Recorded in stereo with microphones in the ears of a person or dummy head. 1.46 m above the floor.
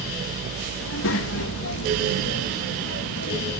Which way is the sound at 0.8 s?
80° left.